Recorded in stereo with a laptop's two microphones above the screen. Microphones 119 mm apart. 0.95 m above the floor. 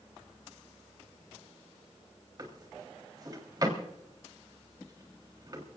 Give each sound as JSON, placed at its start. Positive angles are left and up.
{"t": 2.4, "sound": "a drawer", "side_deg": -35, "distance_m": 3.5}